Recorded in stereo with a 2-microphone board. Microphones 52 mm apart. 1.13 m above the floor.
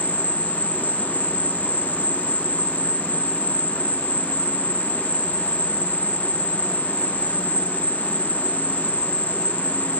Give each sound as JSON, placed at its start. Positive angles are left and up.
{"t": 0.0, "sound": "an insect", "side_deg": -35}